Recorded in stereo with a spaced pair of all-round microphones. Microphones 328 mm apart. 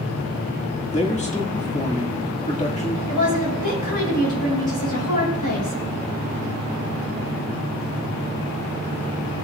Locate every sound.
0.9 s a man speaking: 20° left (ahead or behind), 1.8 m
3.1 s a woman speaking: 70° left (ahead or behind), 5.5 m